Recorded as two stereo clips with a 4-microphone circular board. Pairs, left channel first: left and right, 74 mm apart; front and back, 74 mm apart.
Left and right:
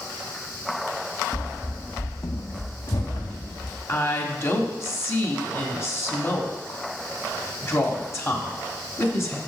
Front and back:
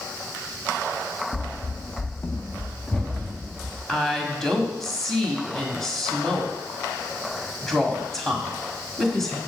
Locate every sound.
1.3 s running footsteps: 25° right, 0.7 m; by 3.8 s 85° left, 2 m
3.9 s a woman speaking: 80° left, 1.3 m